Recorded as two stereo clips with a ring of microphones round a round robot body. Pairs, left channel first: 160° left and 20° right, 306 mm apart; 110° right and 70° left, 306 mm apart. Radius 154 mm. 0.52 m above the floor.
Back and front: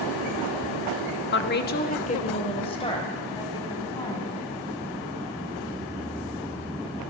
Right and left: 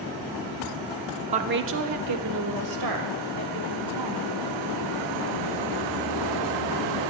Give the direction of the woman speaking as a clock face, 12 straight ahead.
8 o'clock.